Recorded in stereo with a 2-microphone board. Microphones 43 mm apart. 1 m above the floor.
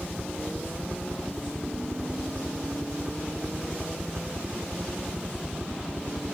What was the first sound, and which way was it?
A helicopter, 10° right (ahead or behind).